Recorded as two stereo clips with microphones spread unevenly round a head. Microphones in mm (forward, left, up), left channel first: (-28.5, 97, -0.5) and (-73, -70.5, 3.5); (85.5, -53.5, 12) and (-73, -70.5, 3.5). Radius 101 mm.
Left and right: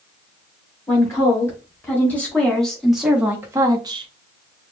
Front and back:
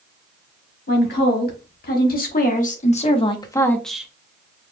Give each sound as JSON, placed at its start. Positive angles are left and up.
{"t": 0.9, "sound": "a woman speaking", "azimuth_deg": 0, "distance_m": 1.8}